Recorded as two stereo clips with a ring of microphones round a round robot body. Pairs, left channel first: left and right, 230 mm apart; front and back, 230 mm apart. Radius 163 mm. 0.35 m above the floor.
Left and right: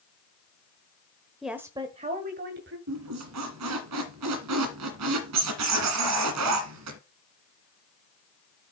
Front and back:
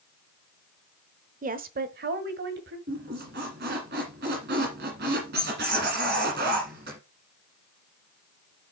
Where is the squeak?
120° right, 1.5 m.